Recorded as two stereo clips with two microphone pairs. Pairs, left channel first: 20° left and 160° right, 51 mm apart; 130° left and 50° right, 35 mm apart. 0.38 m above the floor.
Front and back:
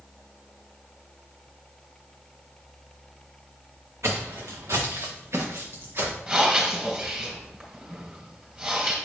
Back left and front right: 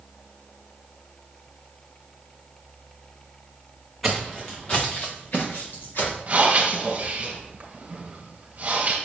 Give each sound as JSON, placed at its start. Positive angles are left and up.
{"t": 4.0, "sound": "footsteps", "azimuth_deg": -135, "distance_m": 1.7}
{"t": 6.3, "sound": "breathing", "azimuth_deg": -95, "distance_m": 3.0}